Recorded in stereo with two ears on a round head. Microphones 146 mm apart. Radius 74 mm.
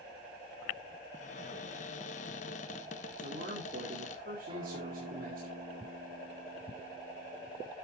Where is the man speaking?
60° right (ahead or behind), 2.5 m.